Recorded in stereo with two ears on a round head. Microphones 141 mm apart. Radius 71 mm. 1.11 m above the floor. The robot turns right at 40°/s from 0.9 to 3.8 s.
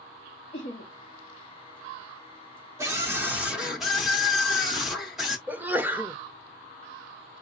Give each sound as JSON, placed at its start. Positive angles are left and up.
{"t": 0.5, "sound": "laughter", "side_deg": 40, "distance_m": 1.0}
{"t": 2.8, "sound": "a scream", "side_deg": -20, "distance_m": 0.6}
{"t": 5.5, "sound": "a sneeze", "side_deg": -10, "distance_m": 0.6}